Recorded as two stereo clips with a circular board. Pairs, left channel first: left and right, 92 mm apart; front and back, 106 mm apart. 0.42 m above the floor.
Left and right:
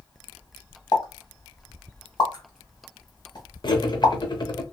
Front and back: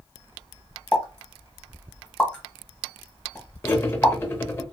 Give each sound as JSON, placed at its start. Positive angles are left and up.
{"t": 0.9, "sound": "a pop", "azimuth_deg": 75, "distance_m": 1.2}
{"t": 3.6, "sound": "cutlery clinking", "azimuth_deg": 65, "distance_m": 0.7}